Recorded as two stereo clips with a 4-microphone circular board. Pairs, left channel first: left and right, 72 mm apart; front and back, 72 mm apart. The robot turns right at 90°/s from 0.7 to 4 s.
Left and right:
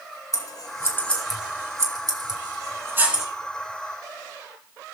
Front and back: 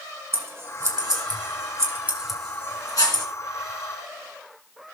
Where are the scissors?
125° left, 1.9 m; by 3.2 s 5° right, 1.9 m.